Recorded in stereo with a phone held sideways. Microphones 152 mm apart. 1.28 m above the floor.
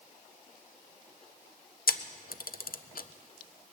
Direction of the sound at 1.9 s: 75° left (ahead or behind).